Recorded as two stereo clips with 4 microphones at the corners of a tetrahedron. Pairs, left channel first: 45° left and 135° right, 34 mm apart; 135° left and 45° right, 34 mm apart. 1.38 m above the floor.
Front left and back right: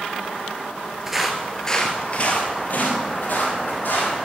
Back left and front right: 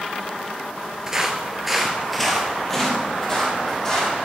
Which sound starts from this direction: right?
Footsteps, at 1.1 s.